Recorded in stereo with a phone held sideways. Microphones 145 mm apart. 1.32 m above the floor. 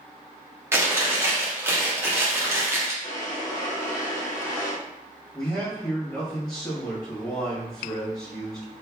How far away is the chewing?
About 0.9 m.